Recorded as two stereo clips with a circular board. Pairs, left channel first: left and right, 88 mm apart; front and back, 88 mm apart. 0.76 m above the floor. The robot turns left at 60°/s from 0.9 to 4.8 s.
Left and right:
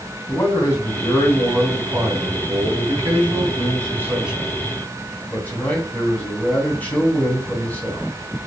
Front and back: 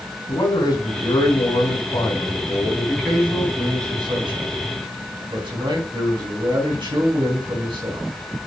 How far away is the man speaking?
About 3.5 m.